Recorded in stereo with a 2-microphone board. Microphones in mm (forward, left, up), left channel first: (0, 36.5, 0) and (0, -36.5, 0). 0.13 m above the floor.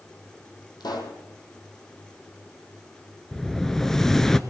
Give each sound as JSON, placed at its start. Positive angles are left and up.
{"t": 0.8, "sound": "a pop", "side_deg": 70, "distance_m": 2.0}
{"t": 3.3, "sound": "an explosion", "side_deg": 5, "distance_m": 0.5}